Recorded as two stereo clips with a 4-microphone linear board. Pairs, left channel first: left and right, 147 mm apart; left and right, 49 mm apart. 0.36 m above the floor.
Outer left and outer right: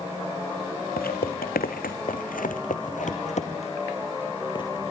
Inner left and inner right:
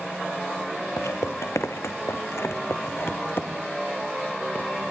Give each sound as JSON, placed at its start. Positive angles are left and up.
{"t": 1.0, "sound": "footsteps", "side_deg": 80, "distance_m": 2.5}